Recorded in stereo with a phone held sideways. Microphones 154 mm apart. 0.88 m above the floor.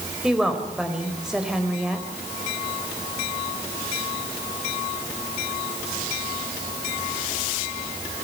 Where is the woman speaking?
5° right (ahead or behind), 5 m.